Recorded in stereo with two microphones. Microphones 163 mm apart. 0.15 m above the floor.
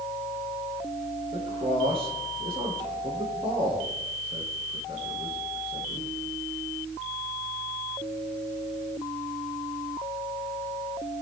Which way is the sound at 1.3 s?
35° right (ahead or behind).